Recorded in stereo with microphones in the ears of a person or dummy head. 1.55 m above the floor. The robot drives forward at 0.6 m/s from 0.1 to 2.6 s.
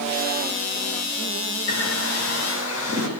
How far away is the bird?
About 6.5 m.